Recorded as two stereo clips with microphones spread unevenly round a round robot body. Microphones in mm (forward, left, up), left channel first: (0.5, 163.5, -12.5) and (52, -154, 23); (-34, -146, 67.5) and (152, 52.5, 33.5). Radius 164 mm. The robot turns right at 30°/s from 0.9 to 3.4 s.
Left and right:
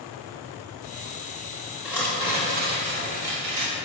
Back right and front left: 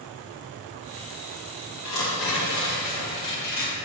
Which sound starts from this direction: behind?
Tearing paper, at 1.9 s.